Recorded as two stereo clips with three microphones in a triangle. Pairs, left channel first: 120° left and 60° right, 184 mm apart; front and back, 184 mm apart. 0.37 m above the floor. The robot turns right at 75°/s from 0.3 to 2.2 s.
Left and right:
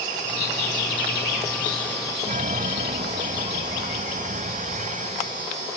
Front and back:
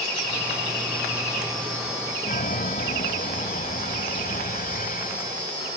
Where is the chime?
25° right.